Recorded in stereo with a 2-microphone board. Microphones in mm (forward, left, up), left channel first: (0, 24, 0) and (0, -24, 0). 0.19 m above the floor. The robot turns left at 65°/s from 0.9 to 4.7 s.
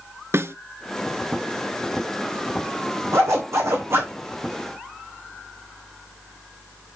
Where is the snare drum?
65° right (ahead or behind), 0.7 m.